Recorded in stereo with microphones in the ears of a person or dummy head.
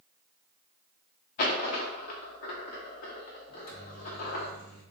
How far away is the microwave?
About 1.3 m.